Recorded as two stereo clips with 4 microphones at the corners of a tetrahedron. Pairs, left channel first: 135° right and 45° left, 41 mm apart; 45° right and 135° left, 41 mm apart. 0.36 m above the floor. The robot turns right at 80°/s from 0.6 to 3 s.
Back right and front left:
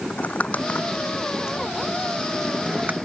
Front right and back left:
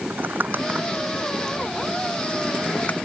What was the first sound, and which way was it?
Crumpling, 170° left.